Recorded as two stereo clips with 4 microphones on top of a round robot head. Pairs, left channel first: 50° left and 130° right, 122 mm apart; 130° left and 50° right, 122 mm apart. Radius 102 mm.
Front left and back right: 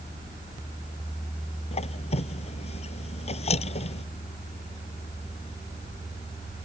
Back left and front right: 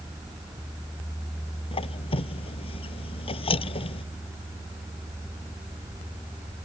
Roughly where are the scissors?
No scissors in this recording.